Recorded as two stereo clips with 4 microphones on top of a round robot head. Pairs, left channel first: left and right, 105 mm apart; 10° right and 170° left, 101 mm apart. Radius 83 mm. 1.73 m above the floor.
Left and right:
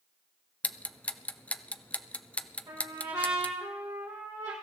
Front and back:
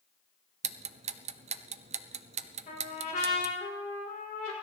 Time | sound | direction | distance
0.6 | ticking | 170° left | 0.6 m
2.7 | a trumpet | 25° right | 4 m